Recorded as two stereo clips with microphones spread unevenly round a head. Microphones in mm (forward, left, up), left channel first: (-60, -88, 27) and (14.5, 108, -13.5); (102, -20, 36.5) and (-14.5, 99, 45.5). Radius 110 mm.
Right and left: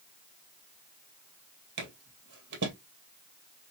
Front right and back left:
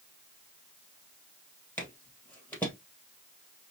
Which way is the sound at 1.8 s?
35° left.